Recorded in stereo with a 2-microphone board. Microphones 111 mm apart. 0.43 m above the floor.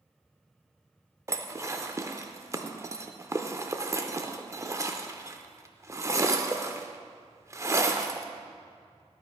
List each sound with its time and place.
1.3 s dishes clattering: 25° right (ahead or behind), 0.5 m